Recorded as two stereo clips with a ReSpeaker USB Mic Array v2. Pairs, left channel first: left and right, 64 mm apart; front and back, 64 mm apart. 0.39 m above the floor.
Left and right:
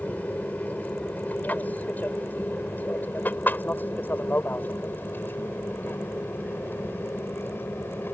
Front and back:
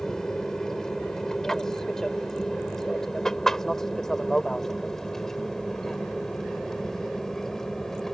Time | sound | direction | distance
0.0 | an aircraft | 70° left | ?